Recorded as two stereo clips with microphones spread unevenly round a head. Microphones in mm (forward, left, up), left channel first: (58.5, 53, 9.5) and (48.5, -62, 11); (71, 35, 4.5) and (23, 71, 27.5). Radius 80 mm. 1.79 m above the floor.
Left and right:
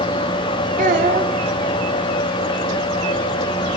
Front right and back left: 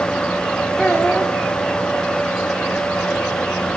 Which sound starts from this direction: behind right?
A child speaking, at 0.8 s.